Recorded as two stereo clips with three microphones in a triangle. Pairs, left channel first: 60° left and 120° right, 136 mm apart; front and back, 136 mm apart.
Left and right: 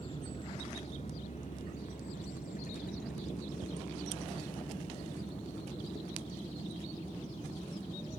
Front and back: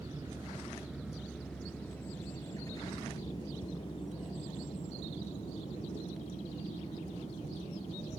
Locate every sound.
0.0 s a vehicle: 115° left; by 8.2 s 30° left